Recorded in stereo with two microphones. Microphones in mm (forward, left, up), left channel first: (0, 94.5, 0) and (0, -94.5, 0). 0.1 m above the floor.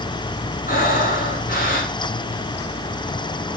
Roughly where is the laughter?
No laughter in this recording.